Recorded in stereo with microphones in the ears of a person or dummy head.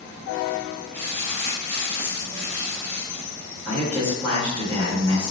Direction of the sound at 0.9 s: 20° left (ahead or behind).